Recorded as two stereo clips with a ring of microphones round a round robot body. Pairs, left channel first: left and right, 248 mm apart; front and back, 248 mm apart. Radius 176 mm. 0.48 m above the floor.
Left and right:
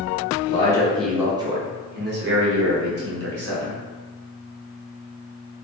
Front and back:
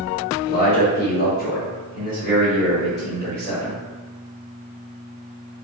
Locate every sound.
0.5 s a man speaking: 35° left, 0.8 m; by 3.8 s 75° right, 1.7 m